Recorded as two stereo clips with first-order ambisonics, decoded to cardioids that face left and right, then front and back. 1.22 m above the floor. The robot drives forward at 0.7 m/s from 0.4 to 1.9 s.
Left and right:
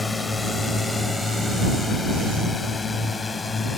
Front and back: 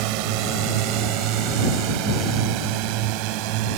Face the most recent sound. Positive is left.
turn(degrees=165)